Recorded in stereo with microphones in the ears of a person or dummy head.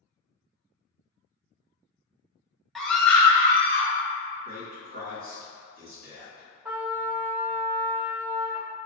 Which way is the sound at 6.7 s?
10° right (ahead or behind).